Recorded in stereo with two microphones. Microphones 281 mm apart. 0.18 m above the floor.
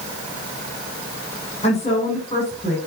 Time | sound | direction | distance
1.6 | a woman speaking | 25° left (ahead or behind) | 7.5 m